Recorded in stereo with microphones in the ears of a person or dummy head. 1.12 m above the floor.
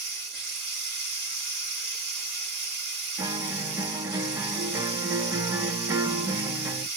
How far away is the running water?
About 2.5 m.